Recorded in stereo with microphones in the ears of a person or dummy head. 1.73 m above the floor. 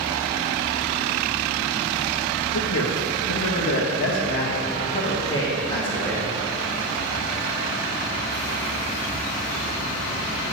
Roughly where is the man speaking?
Left.